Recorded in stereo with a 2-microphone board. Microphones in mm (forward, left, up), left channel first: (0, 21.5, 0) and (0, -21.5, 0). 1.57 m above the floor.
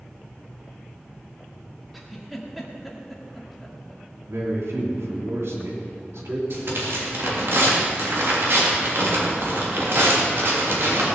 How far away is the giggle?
About 1.8 m.